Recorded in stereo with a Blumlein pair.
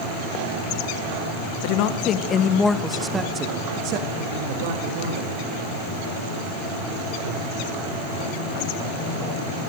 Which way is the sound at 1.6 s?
45° left.